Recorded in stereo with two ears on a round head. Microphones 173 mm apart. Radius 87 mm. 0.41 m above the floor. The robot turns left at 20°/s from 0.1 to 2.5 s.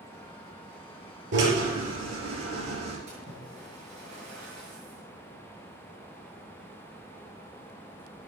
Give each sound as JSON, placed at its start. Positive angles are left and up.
{"t": 1.3, "sound": "a drill", "side_deg": -60, "distance_m": 5.0}
{"t": 3.1, "sound": "a splash", "side_deg": -35, "distance_m": 7.0}